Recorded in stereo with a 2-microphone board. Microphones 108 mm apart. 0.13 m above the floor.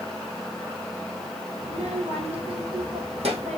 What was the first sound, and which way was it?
A child speaking, 75° right (ahead or behind).